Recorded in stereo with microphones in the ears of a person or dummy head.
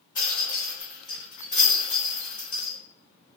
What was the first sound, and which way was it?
A rattle, 15° left (ahead or behind).